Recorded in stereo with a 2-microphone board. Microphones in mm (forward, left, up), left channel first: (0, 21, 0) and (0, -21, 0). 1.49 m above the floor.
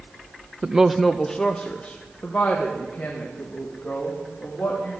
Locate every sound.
0.6 s a woman speaking: 30° right (ahead or behind), 0.5 m; by 4.9 s 45° left (ahead or behind), 3.5 m